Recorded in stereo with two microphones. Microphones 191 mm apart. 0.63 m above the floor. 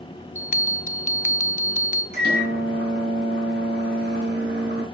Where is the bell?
40° left (ahead or behind), 0.6 m.